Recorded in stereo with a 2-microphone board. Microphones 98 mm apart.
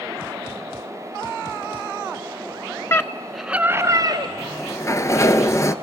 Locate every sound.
2.9 s a scream: 30° left (ahead or behind), 1.3 m; by 4.3 s 50° right (ahead or behind), 1.6 m
4.4 s a sliding door: 35° left (ahead or behind), 0.9 m